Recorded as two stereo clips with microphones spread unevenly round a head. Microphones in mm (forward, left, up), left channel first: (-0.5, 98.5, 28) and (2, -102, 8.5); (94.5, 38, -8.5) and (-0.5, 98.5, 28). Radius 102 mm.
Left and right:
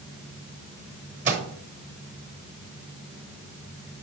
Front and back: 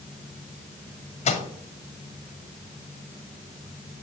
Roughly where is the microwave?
Ahead right.